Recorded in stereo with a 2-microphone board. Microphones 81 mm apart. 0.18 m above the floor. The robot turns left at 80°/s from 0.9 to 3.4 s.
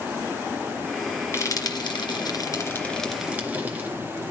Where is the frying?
35° left (ahead or behind), 3 m; by 3.9 s 20° right (ahead or behind), 3 m.